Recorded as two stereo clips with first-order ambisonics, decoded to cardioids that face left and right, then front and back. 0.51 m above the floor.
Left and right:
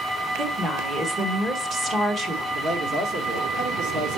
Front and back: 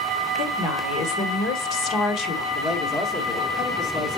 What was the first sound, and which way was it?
A woman speaking, 25° right.